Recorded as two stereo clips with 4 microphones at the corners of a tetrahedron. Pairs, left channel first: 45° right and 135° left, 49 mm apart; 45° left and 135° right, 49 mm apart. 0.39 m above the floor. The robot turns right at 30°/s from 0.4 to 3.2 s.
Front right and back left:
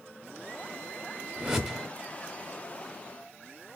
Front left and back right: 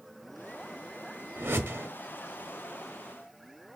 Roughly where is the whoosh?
Behind right.